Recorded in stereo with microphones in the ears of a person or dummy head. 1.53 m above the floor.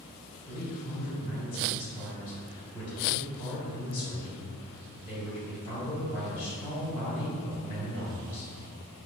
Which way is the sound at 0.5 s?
35° left (ahead or behind).